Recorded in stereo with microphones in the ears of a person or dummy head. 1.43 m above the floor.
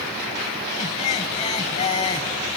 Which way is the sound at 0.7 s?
25° left (ahead or behind).